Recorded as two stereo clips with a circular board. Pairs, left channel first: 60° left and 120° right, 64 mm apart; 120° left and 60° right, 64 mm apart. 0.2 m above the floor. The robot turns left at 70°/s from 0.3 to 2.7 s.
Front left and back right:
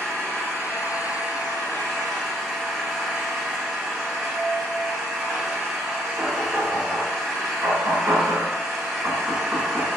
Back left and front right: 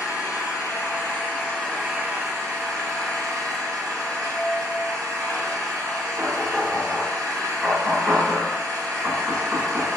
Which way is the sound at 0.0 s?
130° left.